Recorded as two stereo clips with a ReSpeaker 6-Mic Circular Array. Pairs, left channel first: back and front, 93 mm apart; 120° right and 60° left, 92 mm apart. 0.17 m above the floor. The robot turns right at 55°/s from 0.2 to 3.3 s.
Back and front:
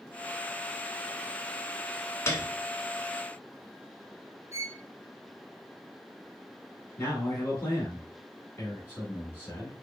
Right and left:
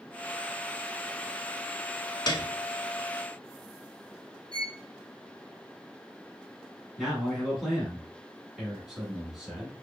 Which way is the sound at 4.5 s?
50° left.